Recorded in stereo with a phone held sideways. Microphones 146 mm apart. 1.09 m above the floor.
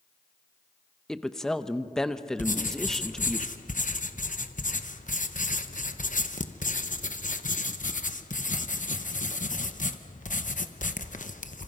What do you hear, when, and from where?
1.1 s a woman speaking: 5° left (ahead or behind), 0.7 m
2.4 s writing: 60° left (ahead or behind), 0.9 m